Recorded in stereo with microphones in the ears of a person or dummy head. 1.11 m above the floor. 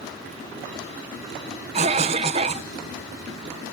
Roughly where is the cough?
Right.